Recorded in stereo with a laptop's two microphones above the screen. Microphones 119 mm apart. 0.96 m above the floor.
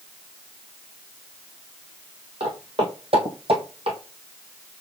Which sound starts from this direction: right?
Footsteps, at 2.4 s.